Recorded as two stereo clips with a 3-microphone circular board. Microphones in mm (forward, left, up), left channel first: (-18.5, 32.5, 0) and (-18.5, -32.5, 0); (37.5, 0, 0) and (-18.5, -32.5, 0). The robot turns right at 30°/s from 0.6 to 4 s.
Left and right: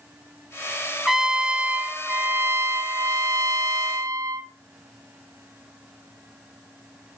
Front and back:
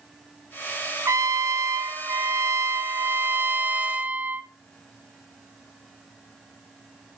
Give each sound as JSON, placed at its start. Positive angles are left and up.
{"t": 1.1, "sound": "a trumpet", "azimuth_deg": -175, "distance_m": 0.7}